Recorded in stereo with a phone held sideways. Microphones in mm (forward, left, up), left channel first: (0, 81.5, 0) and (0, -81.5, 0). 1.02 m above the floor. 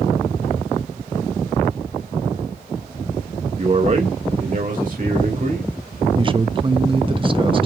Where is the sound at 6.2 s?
30° right (ahead or behind), 0.9 m.